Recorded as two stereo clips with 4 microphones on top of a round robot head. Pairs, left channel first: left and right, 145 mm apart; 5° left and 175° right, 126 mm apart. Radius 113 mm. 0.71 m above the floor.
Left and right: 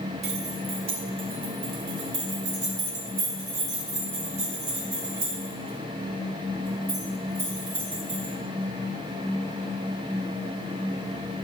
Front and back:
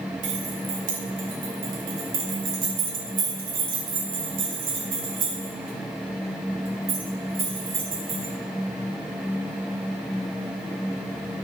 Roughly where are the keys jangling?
Behind right.